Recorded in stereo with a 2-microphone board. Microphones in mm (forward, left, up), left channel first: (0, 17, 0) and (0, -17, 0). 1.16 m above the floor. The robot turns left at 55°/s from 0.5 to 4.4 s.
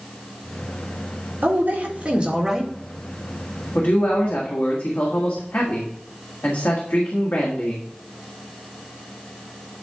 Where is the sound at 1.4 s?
105° right, 1.9 m; by 2.7 s 175° right, 1.9 m.